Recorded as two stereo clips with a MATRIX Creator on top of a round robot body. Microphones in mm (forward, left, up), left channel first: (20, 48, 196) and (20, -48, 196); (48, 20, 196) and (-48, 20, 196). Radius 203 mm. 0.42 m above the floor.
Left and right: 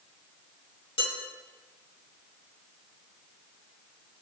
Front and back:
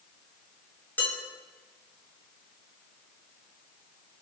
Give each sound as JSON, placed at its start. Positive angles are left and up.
{"t": 1.0, "sound": "dishes clattering", "azimuth_deg": 70, "distance_m": 6.0}